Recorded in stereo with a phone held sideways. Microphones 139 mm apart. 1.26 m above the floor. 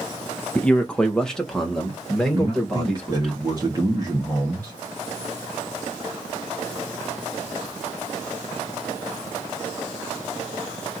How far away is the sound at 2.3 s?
About 1.3 m.